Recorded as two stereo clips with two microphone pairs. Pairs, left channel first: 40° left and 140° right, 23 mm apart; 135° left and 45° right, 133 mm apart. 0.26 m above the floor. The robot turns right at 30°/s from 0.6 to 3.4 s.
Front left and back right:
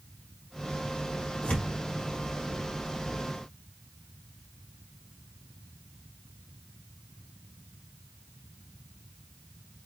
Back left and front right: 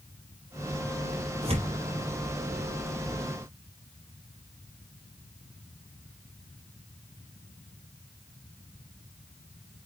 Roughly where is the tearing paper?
Ahead.